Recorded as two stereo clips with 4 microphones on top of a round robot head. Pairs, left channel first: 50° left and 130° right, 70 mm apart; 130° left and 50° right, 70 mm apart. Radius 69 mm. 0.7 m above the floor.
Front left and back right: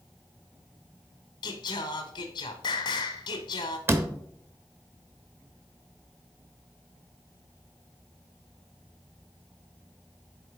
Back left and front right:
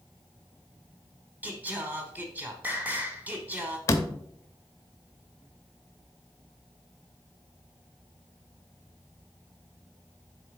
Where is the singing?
20° left, 0.9 m.